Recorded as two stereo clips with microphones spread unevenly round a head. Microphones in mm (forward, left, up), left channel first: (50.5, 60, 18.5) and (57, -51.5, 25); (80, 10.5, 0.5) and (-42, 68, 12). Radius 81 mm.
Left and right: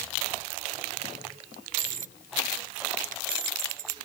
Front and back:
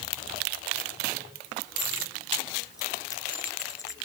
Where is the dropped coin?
100° right.